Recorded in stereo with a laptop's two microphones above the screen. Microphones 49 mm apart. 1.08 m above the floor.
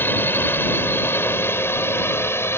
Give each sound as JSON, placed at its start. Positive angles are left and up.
{"t": 0.0, "sound": "a drone", "side_deg": 45}